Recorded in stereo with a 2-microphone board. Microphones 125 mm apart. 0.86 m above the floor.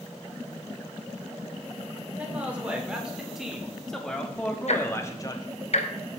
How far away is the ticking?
About 0.9 m.